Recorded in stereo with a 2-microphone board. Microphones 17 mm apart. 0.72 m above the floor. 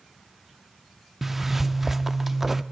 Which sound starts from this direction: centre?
A zipper, at 1.2 s.